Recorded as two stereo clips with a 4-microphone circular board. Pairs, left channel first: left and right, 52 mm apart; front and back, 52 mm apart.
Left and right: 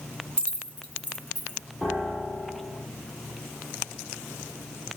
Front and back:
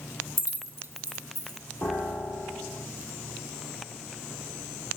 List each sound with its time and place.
0.4 s keys jangling: 155° left, 1.3 m; by 1.6 s 140° left, 3 m
1.8 s a piano: 25° left, 4 m